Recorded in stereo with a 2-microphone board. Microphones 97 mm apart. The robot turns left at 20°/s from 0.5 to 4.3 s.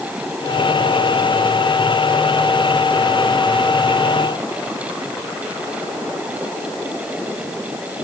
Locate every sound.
Only background noise.